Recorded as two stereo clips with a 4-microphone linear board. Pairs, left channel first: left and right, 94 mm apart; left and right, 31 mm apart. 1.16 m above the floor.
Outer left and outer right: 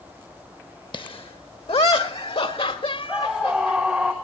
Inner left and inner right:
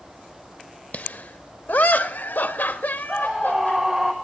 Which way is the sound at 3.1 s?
10° right (ahead or behind).